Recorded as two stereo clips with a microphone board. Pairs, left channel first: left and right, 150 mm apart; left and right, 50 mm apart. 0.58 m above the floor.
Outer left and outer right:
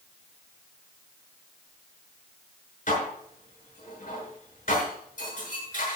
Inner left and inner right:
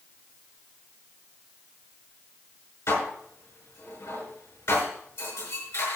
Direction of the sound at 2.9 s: 55° left (ahead or behind).